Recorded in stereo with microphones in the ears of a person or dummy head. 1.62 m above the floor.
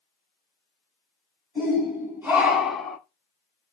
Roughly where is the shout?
Centre.